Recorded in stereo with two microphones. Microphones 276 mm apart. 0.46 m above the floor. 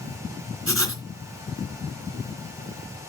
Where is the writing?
50° right (ahead or behind), 2 m.